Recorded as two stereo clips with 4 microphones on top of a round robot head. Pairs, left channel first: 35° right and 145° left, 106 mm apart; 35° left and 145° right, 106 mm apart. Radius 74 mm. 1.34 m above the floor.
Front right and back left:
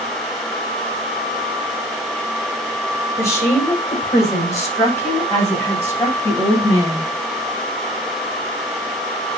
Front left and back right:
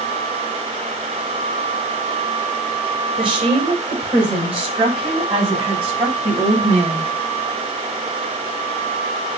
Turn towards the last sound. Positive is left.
turn(degrees=-105)